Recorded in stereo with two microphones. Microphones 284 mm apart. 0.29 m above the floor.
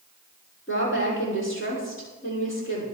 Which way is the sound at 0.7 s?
45° left (ahead or behind).